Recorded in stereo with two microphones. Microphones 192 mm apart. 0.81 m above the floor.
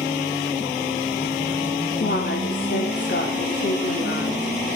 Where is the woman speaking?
60° left (ahead or behind), 3 m.